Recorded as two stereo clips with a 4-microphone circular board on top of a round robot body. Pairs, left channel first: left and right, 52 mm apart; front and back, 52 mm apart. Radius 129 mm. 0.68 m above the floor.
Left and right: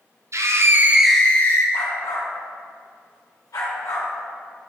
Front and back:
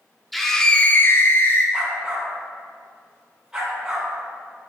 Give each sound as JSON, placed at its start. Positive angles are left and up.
{"t": 0.3, "sound": "a scream", "azimuth_deg": -90, "distance_m": 1.1}
{"t": 1.7, "sound": "a dog barking", "azimuth_deg": 100, "distance_m": 2.5}